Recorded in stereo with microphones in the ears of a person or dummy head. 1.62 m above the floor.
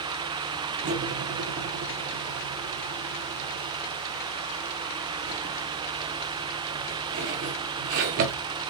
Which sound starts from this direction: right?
Cutlery clinking, at 0.8 s.